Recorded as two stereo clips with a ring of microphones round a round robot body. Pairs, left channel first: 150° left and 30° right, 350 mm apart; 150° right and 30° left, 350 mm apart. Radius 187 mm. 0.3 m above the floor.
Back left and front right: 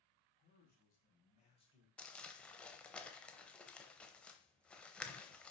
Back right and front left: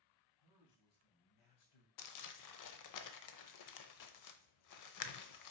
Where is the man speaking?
150° right, 3 m; by 1.9 s 135° right, 1.9 m.